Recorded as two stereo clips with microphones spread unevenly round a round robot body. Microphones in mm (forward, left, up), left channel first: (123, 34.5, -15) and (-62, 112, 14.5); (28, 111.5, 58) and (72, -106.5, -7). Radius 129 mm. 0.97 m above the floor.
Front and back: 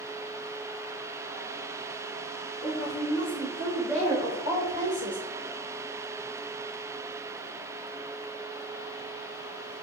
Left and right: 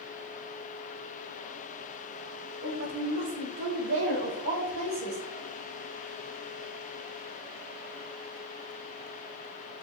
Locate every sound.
2.6 s a woman speaking: 90° right, 3.5 m; by 5.2 s 130° right, 5.5 m